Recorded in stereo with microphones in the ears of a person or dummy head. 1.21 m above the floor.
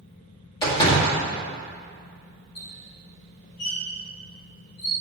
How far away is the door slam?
About 1.9 m.